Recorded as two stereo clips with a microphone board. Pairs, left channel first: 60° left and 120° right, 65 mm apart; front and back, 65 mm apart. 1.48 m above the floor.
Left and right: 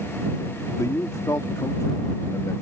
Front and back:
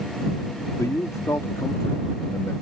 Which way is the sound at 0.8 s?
30° left.